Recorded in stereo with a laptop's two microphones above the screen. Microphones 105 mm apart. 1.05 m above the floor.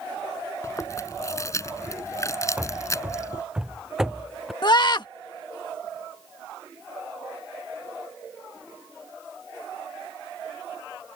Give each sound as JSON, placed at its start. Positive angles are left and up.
{"t": 0.6, "sound": "chewing", "side_deg": 30}
{"t": 2.6, "sound": "running footsteps", "side_deg": -15}
{"t": 4.6, "sound": "a scream", "side_deg": 45}